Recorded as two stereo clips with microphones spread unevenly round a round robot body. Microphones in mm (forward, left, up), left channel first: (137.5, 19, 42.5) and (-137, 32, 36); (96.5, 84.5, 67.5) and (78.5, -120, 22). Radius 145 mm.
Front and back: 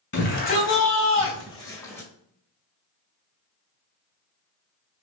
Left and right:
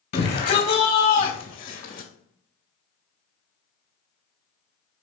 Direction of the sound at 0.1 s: 50° left.